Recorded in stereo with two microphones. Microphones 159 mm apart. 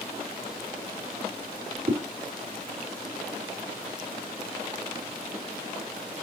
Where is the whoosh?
65° right (ahead or behind), 4 m.